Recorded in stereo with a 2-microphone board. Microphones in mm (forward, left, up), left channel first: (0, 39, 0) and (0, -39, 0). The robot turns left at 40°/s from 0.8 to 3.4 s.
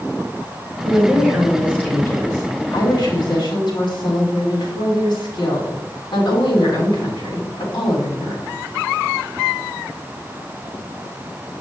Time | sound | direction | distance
0.8 | a woman speaking | 165° right | 3.5 m